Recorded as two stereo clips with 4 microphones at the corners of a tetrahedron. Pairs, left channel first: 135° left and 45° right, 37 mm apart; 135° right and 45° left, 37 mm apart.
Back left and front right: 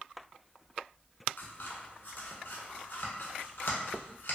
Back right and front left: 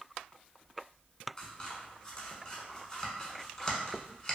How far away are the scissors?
About 0.7 m.